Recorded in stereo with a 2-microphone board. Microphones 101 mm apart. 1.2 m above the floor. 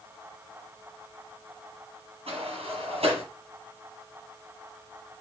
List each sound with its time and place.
2.3 s a sliding door: 75° right (ahead or behind), 9 m